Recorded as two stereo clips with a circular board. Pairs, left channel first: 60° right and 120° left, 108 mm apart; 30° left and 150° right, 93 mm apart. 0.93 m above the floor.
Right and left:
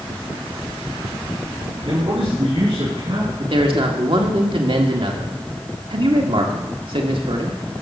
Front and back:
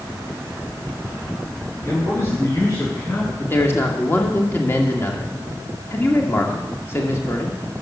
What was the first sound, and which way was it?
A man speaking, 85° left.